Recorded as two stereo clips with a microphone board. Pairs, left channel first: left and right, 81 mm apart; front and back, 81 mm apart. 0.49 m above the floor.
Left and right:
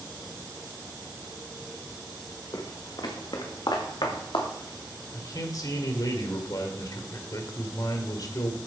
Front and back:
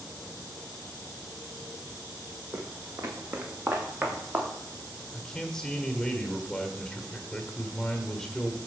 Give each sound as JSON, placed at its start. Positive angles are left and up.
{"t": 2.5, "sound": "footsteps", "azimuth_deg": 125, "distance_m": 1.8}
{"t": 5.1, "sound": "a man speaking", "azimuth_deg": 80, "distance_m": 1.6}